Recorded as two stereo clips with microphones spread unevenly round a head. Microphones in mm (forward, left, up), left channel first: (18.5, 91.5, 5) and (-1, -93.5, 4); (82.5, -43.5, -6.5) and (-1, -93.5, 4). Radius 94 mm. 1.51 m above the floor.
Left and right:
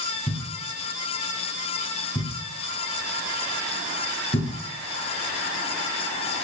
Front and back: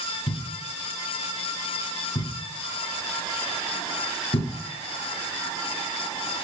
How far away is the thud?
About 2 m.